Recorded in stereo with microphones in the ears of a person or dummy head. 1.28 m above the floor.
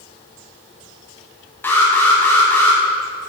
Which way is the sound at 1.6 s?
15° left (ahead or behind).